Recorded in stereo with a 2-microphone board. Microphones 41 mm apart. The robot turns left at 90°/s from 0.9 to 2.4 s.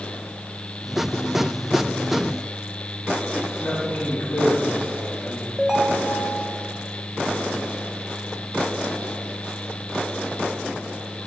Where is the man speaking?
45° left (ahead or behind), 3.5 m.